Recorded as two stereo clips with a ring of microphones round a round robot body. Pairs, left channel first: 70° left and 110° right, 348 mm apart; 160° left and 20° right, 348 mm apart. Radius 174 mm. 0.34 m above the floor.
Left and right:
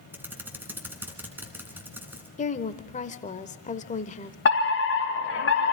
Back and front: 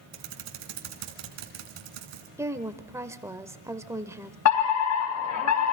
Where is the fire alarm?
120° left, 4.5 m.